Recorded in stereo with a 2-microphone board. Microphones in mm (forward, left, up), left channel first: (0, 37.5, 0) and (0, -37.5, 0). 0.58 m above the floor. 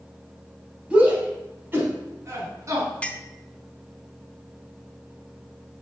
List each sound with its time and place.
0.9 s a shout: 15° right (ahead or behind), 3 m; by 2.9 s 45° right (ahead or behind), 5 m
3.0 s a clink: 15° left (ahead or behind), 0.6 m